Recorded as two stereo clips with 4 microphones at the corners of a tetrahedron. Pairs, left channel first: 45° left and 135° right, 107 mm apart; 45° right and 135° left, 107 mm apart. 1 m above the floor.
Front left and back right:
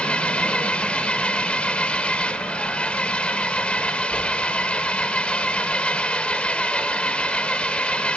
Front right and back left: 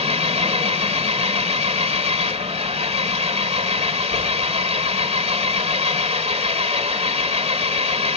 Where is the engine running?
125° left, 1.8 m.